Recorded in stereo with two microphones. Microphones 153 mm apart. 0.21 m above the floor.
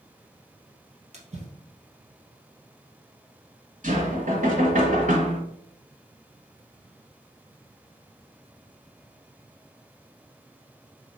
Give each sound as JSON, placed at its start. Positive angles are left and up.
{"t": 1.1, "sound": "a splash", "side_deg": -50, "distance_m": 2.0}
{"t": 3.8, "sound": "knocking", "side_deg": -60, "distance_m": 1.9}